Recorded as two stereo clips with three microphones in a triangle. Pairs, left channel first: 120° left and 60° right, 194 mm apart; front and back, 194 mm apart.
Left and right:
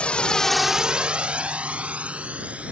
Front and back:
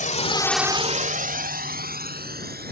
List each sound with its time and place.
0.0 s a drone: 35° left; by 2.7 s 145° right